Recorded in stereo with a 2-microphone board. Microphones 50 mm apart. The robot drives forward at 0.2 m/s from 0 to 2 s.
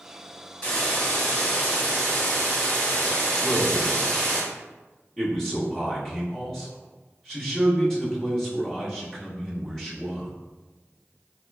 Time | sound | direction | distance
0.6 | a hiss | 25° left (ahead or behind) | 1.8 m
3.4 | a man speaking | 15° left (ahead or behind) | 1.5 m